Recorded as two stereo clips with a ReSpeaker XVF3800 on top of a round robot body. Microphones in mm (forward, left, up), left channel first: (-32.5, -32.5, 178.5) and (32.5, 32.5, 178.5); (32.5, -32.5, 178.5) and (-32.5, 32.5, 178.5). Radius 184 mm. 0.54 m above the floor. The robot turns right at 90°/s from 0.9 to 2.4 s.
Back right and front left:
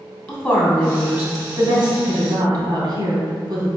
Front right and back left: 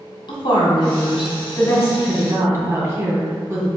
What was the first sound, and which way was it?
A woman speaking, 65° right.